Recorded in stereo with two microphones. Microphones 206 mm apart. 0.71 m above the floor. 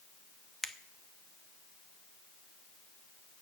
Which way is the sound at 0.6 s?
Centre (ahead or behind).